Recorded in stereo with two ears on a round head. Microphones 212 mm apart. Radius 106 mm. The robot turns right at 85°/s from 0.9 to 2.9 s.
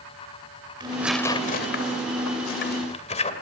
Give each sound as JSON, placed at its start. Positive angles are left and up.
{"t": 0.8, "sound": "tearing paper", "side_deg": -20, "distance_m": 2.0}